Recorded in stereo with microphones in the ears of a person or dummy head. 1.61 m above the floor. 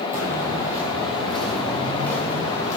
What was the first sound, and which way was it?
Footsteps, 15° right (ahead or behind).